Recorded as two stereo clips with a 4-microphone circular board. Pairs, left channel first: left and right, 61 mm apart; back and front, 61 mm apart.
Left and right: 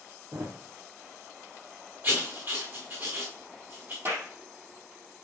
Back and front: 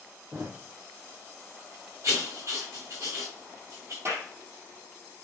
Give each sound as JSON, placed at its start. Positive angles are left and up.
{"t": 0.3, "sound": "a thud", "azimuth_deg": -55, "distance_m": 2.5}
{"t": 2.0, "sound": "writing", "azimuth_deg": -40, "distance_m": 3.5}
{"t": 4.0, "sound": "a clap", "azimuth_deg": -45, "distance_m": 4.0}